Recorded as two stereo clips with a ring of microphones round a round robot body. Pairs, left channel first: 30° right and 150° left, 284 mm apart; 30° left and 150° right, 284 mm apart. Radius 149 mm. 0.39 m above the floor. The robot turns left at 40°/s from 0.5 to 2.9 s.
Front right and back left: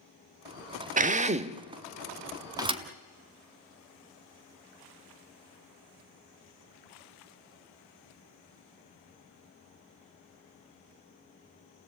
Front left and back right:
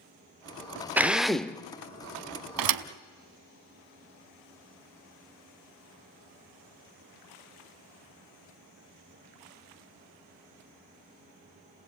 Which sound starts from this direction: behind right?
A thud, at 2.6 s.